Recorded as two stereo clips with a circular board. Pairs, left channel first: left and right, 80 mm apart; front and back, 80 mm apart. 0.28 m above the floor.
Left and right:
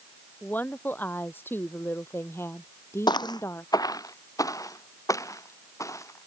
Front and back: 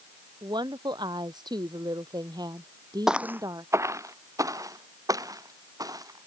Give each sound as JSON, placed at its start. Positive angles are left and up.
{"t": 0.4, "sound": "a woman speaking", "azimuth_deg": 155}
{"t": 3.1, "sound": "footsteps", "azimuth_deg": 95}